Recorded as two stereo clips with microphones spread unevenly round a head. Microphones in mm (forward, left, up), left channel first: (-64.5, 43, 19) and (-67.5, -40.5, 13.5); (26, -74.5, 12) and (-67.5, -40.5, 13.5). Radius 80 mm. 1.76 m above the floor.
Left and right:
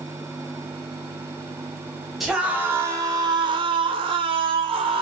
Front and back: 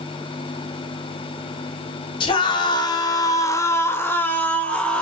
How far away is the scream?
About 0.9 m.